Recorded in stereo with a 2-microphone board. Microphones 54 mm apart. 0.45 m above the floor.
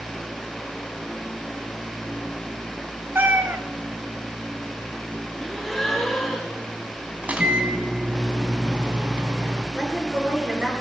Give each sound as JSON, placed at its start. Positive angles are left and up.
{"t": 3.1, "sound": "a cat meowing", "side_deg": -40, "distance_m": 1.5}
{"t": 5.4, "sound": "a gasp", "side_deg": 5, "distance_m": 5.0}
{"t": 7.2, "sound": "a microwave", "side_deg": -25, "distance_m": 3.5}
{"t": 9.8, "sound": "a woman speaking", "side_deg": -15, "distance_m": 7.5}